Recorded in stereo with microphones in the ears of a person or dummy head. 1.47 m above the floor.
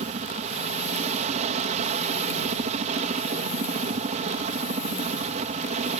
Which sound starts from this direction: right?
A helicopter, at 0.0 s.